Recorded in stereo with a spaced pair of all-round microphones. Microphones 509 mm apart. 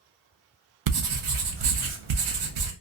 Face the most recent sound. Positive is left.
turn(degrees=-65)  # may be behind; listen again after turning